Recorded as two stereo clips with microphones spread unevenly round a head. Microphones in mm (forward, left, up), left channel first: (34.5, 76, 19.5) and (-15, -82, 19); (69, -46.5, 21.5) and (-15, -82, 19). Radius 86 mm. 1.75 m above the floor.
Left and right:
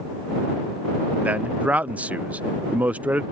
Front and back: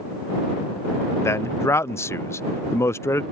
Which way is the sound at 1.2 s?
30° right.